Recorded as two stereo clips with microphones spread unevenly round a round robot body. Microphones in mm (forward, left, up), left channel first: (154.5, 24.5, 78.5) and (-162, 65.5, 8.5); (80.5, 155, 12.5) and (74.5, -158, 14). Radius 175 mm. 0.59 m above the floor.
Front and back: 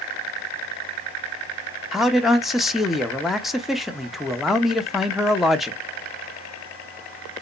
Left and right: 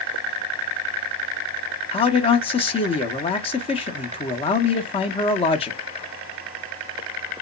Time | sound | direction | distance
1.9 | a man speaking | 120° left | 0.6 m